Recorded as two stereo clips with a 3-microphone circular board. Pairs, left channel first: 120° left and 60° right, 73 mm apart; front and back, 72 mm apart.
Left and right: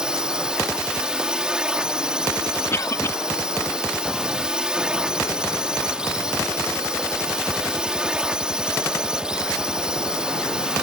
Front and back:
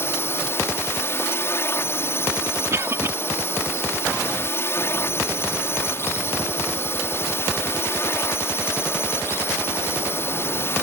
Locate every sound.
0.0 s a drone: 10° left
2.7 s a cough: 150° left